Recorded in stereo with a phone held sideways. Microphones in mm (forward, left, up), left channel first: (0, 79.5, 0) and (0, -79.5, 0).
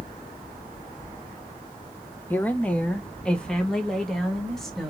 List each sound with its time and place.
2.3 s a woman speaking: 10° left (ahead or behind), 1.0 m; by 4.9 s centre (ahead or behind), 2 m